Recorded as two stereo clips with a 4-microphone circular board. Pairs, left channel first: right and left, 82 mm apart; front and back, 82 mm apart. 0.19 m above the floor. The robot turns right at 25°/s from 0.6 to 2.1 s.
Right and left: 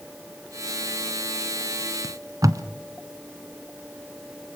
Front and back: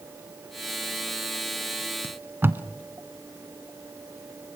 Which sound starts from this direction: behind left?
Tape being pulled, at 2.0 s.